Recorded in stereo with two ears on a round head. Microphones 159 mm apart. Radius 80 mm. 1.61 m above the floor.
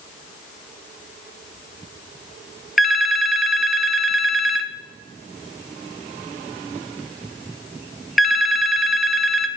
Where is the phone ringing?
Centre (ahead or behind), 0.5 m.